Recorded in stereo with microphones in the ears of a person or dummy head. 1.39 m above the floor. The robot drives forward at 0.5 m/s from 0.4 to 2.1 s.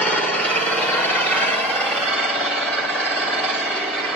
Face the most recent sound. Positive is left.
turn(degrees=5)  # may be behind; listen again after turning